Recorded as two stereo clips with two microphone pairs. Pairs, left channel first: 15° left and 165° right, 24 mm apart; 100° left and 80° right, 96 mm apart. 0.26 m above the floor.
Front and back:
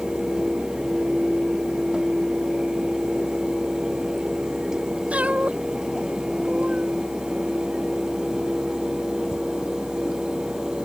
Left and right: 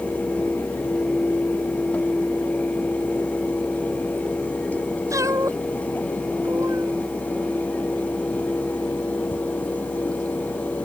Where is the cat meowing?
140° right.